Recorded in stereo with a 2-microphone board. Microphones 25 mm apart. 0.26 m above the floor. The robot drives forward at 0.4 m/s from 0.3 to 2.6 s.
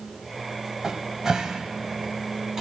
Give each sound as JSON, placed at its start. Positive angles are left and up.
{"t": 0.8, "sound": "a cupboard door", "side_deg": -30, "distance_m": 0.9}